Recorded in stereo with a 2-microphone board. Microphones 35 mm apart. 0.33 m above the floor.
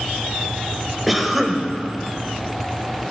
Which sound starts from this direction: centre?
A cough, at 1.1 s.